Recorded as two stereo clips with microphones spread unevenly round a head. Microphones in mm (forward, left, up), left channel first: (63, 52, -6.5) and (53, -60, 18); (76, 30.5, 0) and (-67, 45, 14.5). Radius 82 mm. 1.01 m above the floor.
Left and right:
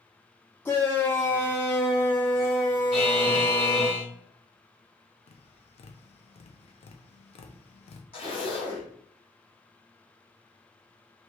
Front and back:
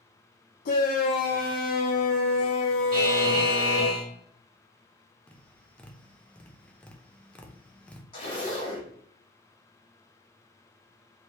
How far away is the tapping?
About 0.5 m.